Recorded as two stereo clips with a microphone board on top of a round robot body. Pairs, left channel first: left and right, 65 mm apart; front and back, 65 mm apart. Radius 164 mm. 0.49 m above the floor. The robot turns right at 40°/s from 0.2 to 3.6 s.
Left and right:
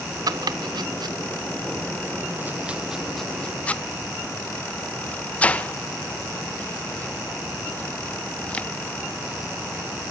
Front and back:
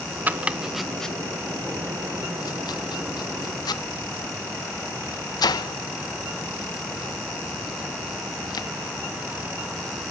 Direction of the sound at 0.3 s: 115° right.